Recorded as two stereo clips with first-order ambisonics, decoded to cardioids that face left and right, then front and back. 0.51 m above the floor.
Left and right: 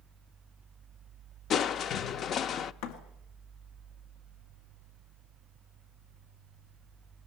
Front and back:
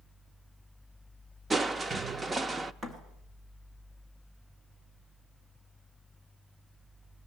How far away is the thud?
About 2 m.